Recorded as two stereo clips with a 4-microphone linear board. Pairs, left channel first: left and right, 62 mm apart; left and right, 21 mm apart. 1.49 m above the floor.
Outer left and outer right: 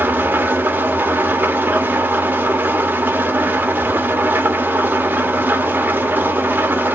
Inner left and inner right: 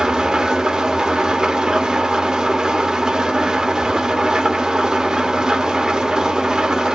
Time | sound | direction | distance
0.0 | an engine running | 30° right (ahead or behind) | 1.0 m